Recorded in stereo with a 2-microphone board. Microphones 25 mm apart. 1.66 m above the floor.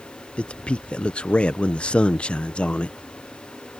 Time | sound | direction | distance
0.4 | a man speaking | 50° left (ahead or behind) | ?